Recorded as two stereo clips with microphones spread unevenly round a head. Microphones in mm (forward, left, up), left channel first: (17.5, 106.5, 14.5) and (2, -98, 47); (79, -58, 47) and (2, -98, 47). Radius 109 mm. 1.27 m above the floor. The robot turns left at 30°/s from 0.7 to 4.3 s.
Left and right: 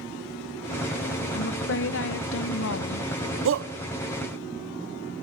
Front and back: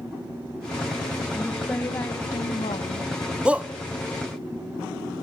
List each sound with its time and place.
1.3 s a woman speaking: 115° left, 1.5 m; by 3.1 s 65° left, 1.5 m
3.5 s a shout: 75° right, 0.6 m; by 3.7 s 80° right, 0.6 m